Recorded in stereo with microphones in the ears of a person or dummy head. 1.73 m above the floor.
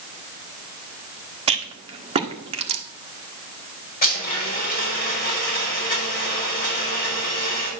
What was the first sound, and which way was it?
A rattle, 25° right (ahead or behind).